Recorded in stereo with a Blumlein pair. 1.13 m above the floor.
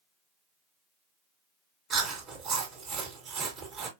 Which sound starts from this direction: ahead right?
Chewing, at 1.9 s.